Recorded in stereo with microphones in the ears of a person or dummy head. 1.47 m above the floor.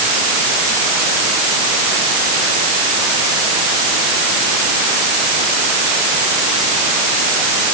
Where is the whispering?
No whispering in this recording.